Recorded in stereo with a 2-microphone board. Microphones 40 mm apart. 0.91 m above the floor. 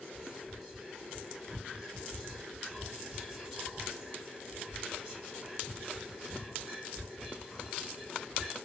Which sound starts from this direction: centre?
Whispering, at 0.1 s.